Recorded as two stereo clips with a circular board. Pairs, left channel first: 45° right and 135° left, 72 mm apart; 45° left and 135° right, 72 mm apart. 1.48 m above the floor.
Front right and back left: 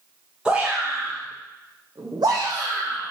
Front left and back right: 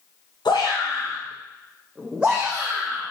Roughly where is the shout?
Ahead left.